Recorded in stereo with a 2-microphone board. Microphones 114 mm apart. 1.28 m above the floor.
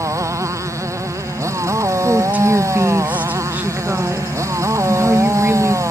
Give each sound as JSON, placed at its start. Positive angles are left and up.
{"t": 0.0, "sound": "a motorcycle", "side_deg": -25}
{"t": 2.0, "sound": "a woman speaking", "side_deg": -15}